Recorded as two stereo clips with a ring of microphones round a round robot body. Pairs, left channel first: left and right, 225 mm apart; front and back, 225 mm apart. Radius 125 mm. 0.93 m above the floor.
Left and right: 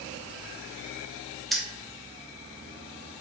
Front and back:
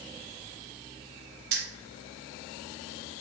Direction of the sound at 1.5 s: Straight behind.